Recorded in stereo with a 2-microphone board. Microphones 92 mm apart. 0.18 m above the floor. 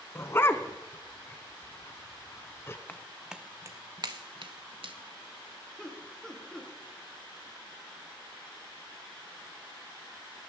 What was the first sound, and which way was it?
A dog barking, 30° left (ahead or behind).